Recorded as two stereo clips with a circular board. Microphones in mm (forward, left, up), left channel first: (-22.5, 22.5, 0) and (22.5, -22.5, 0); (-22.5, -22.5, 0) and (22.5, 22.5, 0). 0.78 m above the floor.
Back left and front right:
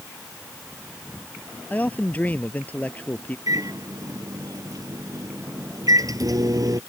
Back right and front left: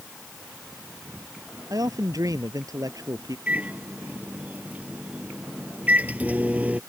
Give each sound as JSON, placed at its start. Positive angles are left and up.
{"t": 1.7, "sound": "a man speaking", "azimuth_deg": 70}
{"t": 3.5, "sound": "a microwave", "azimuth_deg": -25}